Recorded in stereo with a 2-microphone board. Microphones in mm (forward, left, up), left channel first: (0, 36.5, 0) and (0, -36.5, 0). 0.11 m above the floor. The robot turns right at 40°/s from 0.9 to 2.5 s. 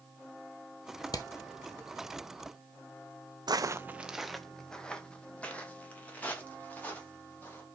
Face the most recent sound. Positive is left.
turn(degrees=25)  # may be behind; listen again after turning